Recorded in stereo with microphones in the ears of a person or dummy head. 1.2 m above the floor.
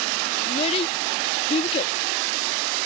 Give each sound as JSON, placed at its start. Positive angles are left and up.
{"t": 0.5, "sound": "a child speaking", "side_deg": 35}